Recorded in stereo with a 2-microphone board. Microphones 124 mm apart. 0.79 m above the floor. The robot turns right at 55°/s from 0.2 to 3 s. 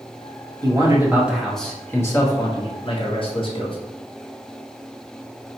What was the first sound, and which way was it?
A man speaking, 50° right.